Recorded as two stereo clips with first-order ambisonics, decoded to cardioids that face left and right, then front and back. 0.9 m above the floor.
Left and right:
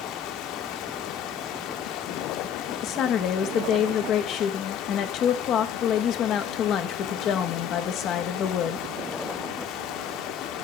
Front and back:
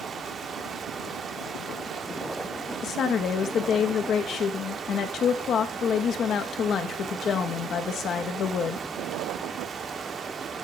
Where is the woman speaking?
50° left, 0.8 m.